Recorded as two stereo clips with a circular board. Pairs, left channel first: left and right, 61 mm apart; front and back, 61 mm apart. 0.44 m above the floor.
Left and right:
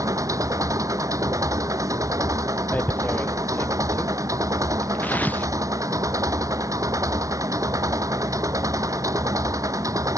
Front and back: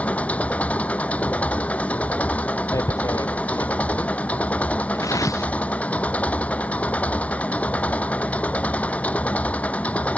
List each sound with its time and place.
0.0 s an engine running: 65° right
2.7 s tearing paper: 30° left